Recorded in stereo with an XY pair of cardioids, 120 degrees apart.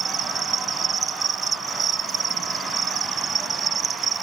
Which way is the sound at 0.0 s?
40° right.